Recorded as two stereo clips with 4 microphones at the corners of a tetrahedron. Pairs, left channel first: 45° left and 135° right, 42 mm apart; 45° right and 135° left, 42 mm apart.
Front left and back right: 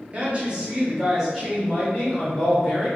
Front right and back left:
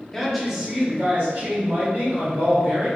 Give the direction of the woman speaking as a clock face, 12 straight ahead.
4 o'clock.